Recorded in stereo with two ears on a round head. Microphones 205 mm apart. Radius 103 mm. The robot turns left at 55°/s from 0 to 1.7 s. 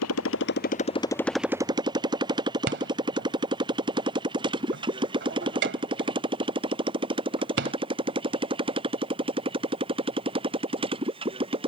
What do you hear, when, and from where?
0.0 s a motorcycle: 75° left (ahead or behind); by 11.7 s 25° right (ahead or behind)
2.7 s a rattle: 55° right (ahead or behind)